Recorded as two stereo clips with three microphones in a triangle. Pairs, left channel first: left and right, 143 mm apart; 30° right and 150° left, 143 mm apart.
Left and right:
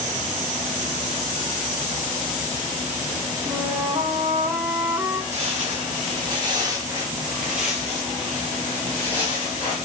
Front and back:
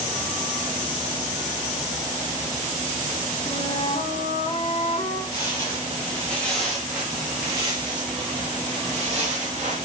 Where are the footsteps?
85° right, 1.7 m; by 9.8 s 140° left, 2 m.